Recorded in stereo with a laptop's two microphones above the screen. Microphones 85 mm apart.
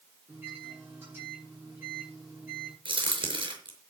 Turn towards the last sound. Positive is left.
turn(degrees=-75)  # may be behind; listen again after turning